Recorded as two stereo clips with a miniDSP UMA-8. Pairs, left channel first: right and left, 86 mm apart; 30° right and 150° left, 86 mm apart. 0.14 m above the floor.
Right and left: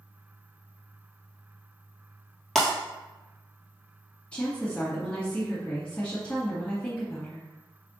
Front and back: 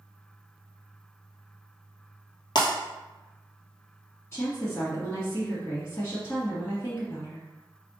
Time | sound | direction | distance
2.5 | breaking glass | 5° right | 1.3 m
4.3 | a woman speaking | 30° right | 1.4 m